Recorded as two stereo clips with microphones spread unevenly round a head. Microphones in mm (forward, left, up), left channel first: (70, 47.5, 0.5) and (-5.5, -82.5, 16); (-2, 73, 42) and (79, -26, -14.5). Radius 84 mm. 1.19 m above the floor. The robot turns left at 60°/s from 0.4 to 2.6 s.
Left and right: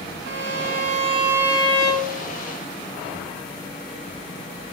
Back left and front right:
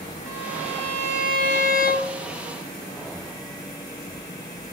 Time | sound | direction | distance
0.3 | a violin | 140° right | 2 m